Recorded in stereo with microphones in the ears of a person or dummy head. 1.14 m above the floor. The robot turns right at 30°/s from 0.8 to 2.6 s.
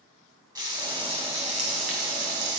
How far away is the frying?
About 2 m.